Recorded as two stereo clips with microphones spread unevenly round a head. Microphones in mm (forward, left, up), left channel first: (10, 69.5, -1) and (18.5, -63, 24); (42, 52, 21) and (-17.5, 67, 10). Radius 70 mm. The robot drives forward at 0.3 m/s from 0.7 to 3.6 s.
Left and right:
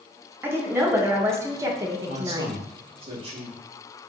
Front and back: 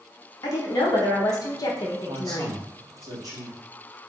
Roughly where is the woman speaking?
Ahead.